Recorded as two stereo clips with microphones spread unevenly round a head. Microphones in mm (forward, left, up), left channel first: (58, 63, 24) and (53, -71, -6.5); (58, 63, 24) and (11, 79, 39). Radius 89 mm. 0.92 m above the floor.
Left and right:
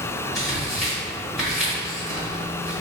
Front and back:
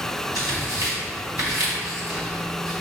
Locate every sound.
0.3 s tearing paper: 175° left, 1.5 m